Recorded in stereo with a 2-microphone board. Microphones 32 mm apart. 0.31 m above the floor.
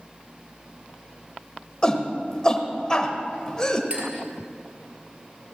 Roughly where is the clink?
Right.